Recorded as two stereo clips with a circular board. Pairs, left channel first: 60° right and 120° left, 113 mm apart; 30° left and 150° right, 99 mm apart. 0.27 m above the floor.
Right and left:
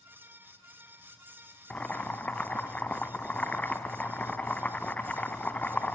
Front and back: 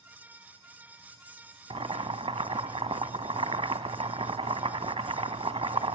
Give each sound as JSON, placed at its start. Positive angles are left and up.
{"t": 1.7, "sound": "boiling", "azimuth_deg": -135, "distance_m": 0.9}